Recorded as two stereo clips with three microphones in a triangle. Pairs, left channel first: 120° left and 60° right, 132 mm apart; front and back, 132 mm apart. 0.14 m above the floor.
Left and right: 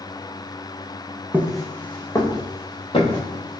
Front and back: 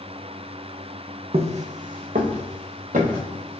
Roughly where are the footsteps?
Behind right.